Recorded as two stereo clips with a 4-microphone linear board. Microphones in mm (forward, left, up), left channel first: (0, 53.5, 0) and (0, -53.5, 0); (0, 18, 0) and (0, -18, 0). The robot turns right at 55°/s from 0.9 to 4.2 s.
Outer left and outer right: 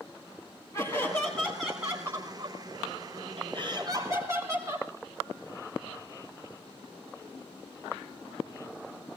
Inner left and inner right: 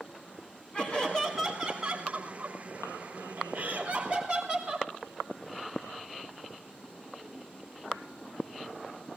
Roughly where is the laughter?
Behind left.